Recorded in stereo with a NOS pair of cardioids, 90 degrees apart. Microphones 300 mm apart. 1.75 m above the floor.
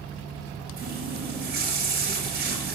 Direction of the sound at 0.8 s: 35° right.